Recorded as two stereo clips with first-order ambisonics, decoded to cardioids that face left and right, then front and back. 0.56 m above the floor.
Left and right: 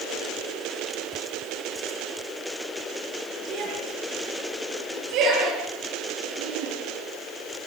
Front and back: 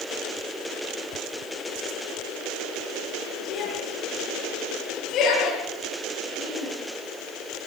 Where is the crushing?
No crushing in this recording.